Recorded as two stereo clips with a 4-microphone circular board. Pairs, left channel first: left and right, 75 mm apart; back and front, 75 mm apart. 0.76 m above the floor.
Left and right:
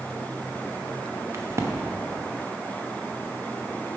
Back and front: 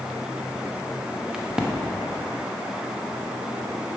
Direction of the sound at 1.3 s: 75° right.